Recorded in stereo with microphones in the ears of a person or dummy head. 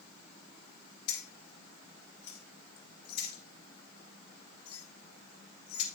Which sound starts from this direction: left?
Keys jangling, at 1.1 s.